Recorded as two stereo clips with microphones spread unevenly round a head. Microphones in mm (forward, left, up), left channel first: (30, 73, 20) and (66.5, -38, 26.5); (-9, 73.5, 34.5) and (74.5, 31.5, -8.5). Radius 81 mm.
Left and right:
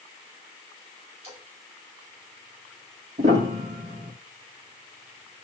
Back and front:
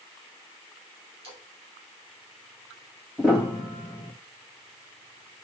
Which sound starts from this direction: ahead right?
A splash, at 1.2 s.